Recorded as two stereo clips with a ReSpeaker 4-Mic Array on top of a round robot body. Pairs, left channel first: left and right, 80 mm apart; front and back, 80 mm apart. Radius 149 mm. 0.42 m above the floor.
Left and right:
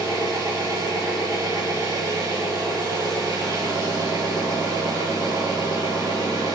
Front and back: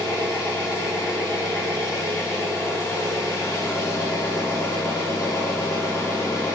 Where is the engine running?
50° right, 7 m.